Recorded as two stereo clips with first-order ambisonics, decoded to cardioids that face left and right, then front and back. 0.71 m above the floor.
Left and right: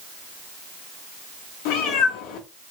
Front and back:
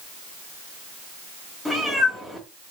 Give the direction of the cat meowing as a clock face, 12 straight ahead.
9 o'clock.